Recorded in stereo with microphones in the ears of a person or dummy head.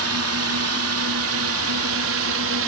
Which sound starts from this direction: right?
A drone, at 0.0 s.